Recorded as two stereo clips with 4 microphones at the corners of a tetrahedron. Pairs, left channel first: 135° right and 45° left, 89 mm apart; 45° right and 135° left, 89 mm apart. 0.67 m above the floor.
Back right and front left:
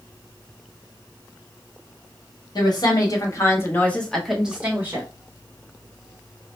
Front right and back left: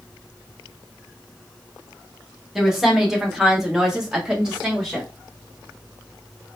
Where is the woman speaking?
140° right, 1.3 m; by 5.1 s 60° left, 0.9 m.